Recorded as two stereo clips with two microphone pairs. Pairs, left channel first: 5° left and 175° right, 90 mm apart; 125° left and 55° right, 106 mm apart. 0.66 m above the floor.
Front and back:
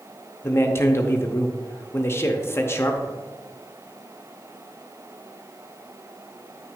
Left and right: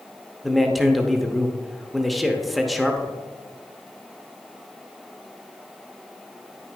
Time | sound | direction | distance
0.4 | a man speaking | 30° left | 0.7 m